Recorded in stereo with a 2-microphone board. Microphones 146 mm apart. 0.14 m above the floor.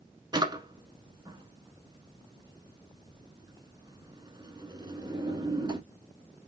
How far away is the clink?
I don't hear a clink.